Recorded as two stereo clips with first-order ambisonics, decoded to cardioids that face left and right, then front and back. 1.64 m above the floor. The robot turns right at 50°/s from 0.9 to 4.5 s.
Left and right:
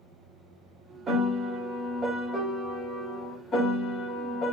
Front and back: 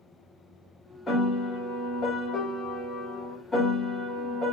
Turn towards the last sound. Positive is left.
turn(degrees=110)